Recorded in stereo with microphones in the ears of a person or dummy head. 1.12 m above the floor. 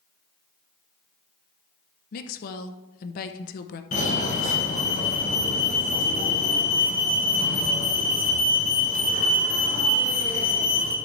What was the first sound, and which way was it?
A woman speaking, 45° left (ahead or behind).